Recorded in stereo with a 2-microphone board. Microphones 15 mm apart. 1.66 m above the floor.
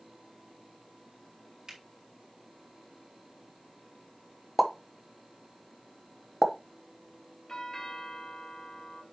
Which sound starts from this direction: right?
A finger snap, at 1.7 s.